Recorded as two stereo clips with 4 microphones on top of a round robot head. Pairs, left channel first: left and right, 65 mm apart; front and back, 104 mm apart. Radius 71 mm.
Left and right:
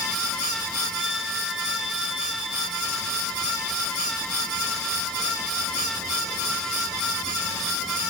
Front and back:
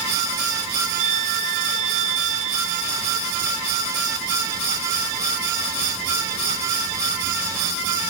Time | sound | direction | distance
1.0 | a violin | 175° right | ?